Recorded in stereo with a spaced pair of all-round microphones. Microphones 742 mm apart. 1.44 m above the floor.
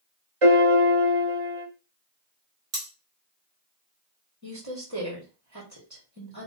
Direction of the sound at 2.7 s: 55° right (ahead or behind).